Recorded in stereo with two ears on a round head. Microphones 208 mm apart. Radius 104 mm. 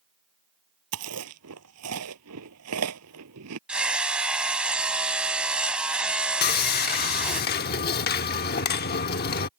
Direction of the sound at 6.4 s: 45° left (ahead or behind).